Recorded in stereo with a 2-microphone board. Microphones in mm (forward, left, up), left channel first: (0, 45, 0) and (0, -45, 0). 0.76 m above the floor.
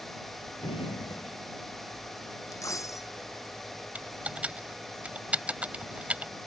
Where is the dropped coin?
35° left (ahead or behind).